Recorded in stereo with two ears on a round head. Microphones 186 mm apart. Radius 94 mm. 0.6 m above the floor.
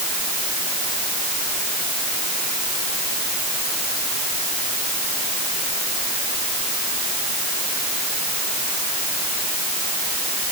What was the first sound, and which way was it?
Only background noise.